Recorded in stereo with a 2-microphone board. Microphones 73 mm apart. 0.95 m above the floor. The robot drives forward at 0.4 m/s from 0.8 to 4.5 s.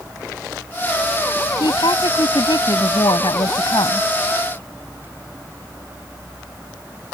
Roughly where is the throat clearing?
I don't hear throat clearing.